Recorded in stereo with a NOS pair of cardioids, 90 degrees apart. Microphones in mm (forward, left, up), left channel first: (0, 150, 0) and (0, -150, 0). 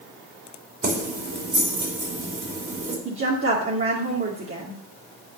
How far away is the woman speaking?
About 2.5 m.